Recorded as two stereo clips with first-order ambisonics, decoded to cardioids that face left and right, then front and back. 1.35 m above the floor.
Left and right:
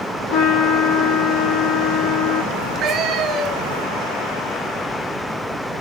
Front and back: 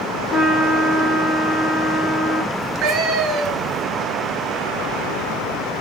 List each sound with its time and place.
0.3 s a trumpet: 85° left, 2.5 m
2.5 s a cat meowing: 140° right, 2 m